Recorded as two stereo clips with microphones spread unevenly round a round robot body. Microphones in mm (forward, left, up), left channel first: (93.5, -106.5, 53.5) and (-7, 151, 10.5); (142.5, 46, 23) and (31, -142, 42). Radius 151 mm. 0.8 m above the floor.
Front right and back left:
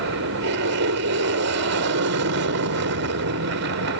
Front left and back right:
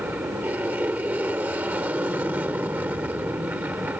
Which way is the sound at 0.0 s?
155° left.